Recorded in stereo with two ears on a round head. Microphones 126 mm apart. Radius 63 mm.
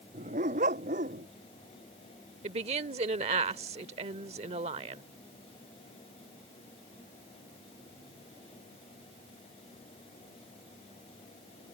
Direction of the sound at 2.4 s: 45° right (ahead or behind).